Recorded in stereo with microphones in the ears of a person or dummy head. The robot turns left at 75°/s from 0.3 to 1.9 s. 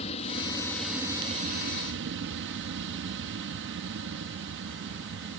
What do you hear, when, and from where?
0.0 s an aircraft: 35° left; by 5.4 s 85° right